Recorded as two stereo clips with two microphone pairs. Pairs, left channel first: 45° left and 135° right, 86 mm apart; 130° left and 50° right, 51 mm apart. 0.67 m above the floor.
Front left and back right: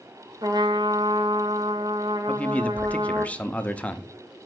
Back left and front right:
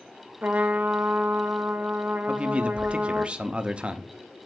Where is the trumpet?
105° right, 0.8 m.